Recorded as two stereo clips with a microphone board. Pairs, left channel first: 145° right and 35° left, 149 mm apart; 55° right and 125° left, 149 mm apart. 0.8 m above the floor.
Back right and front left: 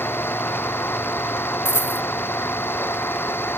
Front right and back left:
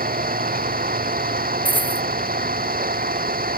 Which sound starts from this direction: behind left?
An engine running, at 0.0 s.